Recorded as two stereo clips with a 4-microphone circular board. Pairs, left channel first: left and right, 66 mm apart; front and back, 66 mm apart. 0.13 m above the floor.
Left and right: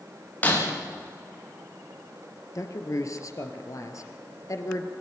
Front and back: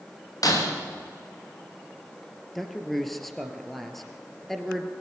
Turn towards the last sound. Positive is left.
turn(degrees=85)